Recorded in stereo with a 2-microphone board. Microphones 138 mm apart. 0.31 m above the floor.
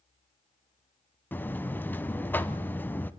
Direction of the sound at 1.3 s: 15° left (ahead or behind).